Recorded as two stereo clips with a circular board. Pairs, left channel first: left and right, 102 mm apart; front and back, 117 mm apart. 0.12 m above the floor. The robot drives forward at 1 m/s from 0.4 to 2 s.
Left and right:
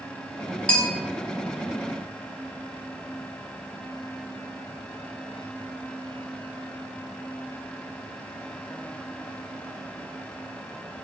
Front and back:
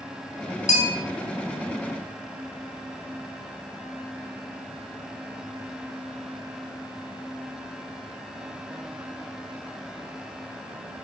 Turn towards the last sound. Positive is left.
turn(degrees=15)